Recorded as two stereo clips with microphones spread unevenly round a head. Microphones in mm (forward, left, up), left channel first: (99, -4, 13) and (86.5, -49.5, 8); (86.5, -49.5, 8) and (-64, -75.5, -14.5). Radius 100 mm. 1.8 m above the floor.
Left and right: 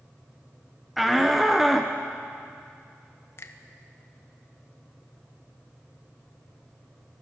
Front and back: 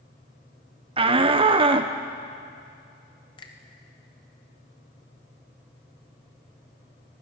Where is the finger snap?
65° left, 1.3 m.